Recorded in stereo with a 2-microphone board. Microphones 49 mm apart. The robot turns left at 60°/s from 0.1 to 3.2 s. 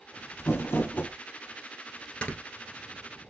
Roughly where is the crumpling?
Left.